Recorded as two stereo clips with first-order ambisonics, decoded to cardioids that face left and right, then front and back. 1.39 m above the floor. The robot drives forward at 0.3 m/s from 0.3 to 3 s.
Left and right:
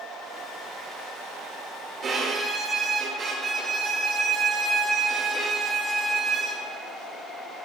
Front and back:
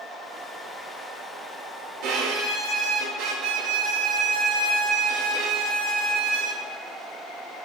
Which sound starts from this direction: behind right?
A violin, at 2.0 s.